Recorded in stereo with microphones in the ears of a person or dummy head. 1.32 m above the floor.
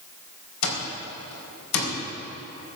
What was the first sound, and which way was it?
An alarm clock, 75° left (ahead or behind).